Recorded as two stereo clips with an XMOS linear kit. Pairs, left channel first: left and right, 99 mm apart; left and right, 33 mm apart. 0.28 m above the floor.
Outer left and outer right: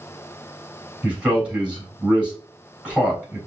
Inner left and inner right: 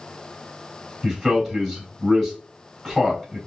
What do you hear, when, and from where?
1.0 s a man speaking: 10° right (ahead or behind), 3 m